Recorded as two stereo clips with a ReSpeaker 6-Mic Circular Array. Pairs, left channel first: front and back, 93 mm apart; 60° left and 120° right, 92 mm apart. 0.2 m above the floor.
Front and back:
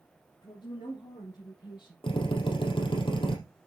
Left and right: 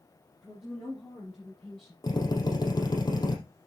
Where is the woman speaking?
30° right, 5 m; by 1.9 s 25° right, 6 m.